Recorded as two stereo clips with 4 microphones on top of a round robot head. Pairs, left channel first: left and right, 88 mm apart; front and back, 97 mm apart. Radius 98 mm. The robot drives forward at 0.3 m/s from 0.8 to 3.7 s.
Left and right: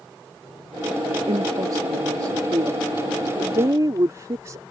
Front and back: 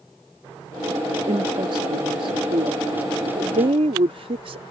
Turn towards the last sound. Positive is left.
turn(degrees=-150)